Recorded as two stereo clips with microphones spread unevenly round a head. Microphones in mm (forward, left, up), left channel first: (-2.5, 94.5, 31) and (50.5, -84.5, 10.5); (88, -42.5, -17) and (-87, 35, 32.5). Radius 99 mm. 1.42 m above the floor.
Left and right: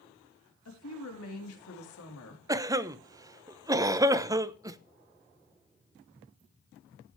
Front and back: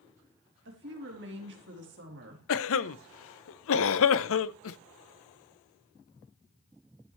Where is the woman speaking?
120° left, 3.5 m.